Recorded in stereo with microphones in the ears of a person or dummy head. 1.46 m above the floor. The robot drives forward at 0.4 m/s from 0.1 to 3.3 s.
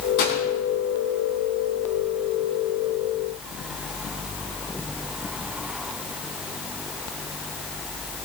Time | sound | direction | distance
0.2 | a gunshot | 70° left (ahead or behind) | 3.5 m